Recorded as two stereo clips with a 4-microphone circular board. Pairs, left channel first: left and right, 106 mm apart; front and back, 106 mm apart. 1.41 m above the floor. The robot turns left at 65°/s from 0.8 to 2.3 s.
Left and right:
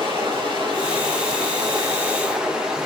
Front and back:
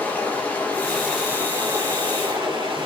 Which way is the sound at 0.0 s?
70° right.